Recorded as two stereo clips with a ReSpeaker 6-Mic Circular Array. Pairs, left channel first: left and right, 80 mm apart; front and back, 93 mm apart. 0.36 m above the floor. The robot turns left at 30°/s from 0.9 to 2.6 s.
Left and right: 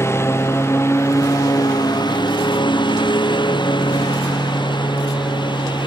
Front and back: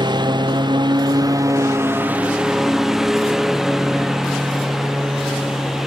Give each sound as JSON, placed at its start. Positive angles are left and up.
{"t": 0.0, "sound": "a lawn mower", "azimuth_deg": 145}